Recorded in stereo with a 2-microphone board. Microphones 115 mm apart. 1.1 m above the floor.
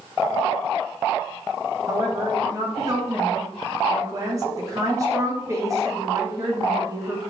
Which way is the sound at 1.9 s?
30° right (ahead or behind).